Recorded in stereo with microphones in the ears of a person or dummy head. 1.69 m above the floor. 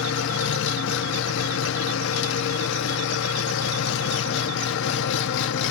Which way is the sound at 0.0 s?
60° left (ahead or behind).